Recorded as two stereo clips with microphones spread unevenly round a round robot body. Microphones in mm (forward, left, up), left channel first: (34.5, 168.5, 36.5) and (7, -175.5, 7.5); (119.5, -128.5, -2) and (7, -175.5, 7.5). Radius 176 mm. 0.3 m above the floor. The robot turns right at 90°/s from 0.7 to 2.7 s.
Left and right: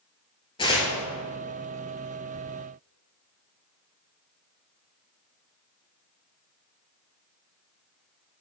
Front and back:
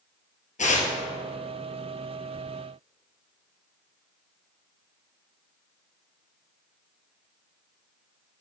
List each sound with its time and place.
0.6 s tearing paper: 10° left, 2 m; by 0.9 s 30° left, 2 m